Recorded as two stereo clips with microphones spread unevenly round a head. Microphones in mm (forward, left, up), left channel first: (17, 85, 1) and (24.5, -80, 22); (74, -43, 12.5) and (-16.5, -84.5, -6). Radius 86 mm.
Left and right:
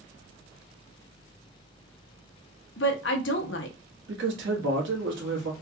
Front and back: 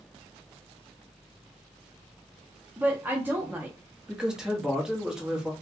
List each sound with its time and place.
2.8 s a woman speaking: 120° left, 0.8 m
4.1 s a man speaking: 75° right, 1.6 m